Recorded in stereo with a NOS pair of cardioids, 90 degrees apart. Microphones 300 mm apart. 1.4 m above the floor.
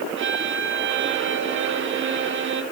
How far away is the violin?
About 1.8 m.